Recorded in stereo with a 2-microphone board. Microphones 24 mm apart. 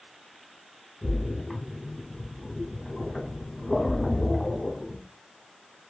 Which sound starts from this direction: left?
A splash, at 1.0 s.